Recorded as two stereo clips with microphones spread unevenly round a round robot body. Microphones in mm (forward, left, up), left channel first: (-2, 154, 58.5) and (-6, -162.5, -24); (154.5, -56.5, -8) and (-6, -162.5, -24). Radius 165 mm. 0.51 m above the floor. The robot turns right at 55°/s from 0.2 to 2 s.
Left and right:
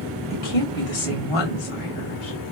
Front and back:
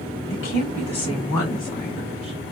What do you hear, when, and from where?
0.3 s a woman speaking: 35° left, 2.5 m; by 2.4 s 130° left, 2.5 m